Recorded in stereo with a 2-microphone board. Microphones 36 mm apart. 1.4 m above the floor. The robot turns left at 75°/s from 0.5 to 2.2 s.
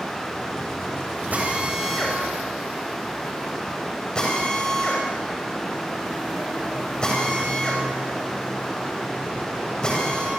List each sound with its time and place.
1.3 s a drill: 45° right (ahead or behind), 7.5 m; by 10.3 s 20° left (ahead or behind), 7.5 m